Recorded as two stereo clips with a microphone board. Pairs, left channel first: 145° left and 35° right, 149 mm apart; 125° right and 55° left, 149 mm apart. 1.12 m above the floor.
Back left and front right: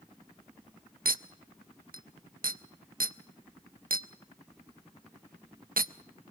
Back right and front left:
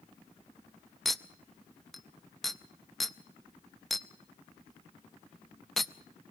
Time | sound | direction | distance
1.1 | a clink | 35° right | 0.6 m